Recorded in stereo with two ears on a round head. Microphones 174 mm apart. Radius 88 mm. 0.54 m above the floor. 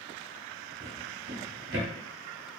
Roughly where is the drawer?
Right.